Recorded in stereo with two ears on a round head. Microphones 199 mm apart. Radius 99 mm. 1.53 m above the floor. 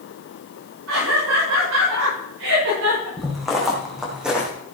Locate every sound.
0.9 s laughter: 85° right, 6.5 m
3.2 s footsteps: centre (ahead or behind), 5 m; by 4.5 s 5° right (ahead or behind), 3.5 m